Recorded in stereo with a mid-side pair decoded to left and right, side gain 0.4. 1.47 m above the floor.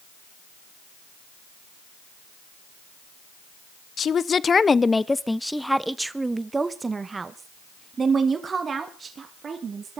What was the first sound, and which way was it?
A woman speaking, 55° left.